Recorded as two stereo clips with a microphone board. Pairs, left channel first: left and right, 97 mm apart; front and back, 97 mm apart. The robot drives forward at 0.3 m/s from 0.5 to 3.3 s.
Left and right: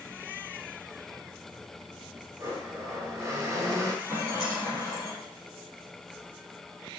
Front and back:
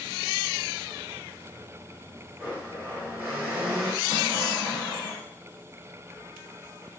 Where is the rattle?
140° right, 3.5 m.